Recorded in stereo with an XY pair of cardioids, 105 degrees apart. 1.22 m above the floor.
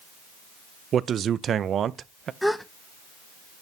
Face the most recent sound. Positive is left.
turn(degrees=5)